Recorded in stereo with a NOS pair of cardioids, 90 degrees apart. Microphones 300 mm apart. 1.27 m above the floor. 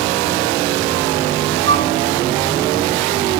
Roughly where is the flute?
Ahead right.